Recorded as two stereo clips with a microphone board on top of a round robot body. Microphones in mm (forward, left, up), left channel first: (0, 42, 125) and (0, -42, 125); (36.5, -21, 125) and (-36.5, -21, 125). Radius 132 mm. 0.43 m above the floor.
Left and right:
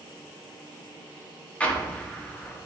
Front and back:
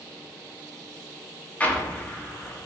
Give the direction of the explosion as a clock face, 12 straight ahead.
11 o'clock.